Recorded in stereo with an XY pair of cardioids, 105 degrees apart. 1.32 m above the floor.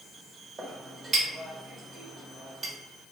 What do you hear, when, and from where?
0.6 s a clink: 40° right, 1.3 m